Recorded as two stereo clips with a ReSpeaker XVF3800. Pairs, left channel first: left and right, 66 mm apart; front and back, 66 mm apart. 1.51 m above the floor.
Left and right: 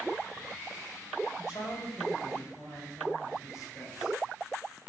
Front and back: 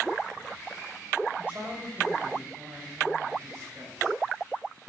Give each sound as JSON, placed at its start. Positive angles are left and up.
{"t": 1.4, "sound": "a man speaking", "azimuth_deg": 115, "distance_m": 6.5}